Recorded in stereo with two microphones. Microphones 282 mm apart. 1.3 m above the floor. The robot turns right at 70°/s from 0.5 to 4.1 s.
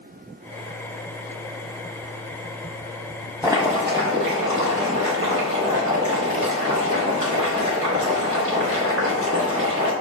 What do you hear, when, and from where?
3.4 s boiling: 170° right, 1.1 m; by 9.9 s 125° right, 1.1 m